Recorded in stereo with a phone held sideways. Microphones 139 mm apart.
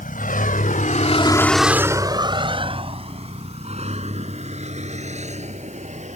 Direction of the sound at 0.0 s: 80° left.